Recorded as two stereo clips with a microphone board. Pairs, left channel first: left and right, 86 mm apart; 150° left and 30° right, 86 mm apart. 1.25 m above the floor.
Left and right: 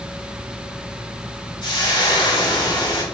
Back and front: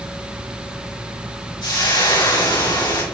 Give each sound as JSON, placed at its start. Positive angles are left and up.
{"t": 1.6, "sound": "frying", "azimuth_deg": 120, "distance_m": 4.0}